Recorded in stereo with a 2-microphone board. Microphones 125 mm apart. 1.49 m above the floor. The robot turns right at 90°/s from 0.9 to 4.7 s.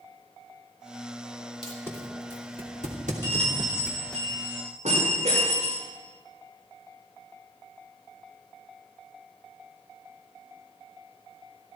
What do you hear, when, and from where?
1.6 s tape being pulled: 45° left (ahead or behind), 2.5 m; by 4.2 s 10° left (ahead or behind), 2.5 m
3.2 s a bell: 160° left, 6 m; by 5.8 s 65° right, 6 m